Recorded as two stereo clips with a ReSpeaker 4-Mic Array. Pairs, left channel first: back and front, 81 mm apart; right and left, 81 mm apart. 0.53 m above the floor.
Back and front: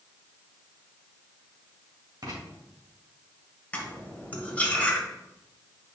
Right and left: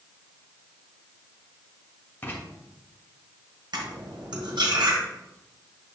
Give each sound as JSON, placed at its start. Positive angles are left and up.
{"t": 2.2, "sound": "writing", "azimuth_deg": -30, "distance_m": 2.0}
{"t": 3.7, "sound": "cutlery clinking", "azimuth_deg": 110, "distance_m": 1.5}